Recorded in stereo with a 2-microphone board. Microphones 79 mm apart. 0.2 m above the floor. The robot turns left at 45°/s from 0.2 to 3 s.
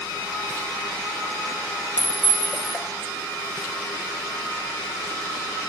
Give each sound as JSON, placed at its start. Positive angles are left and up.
{"t": 2.0, "sound": "a clink", "azimuth_deg": -45, "distance_m": 0.9}